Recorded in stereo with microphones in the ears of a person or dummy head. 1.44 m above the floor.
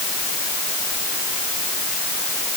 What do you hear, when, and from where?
Only background noise.